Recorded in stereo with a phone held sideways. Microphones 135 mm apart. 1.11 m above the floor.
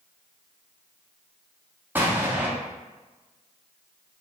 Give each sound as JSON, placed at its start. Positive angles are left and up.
{"t": 1.9, "sound": "an explosion", "side_deg": -15, "distance_m": 0.6}